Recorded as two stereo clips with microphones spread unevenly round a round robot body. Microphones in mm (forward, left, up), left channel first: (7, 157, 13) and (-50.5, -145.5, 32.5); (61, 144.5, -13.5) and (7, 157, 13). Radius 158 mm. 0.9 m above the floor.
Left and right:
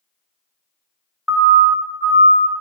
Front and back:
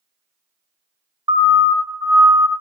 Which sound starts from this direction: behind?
A siren, at 1.3 s.